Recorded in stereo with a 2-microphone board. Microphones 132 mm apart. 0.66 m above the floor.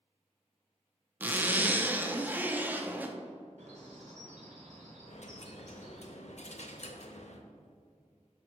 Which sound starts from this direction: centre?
A zipper, at 1.2 s.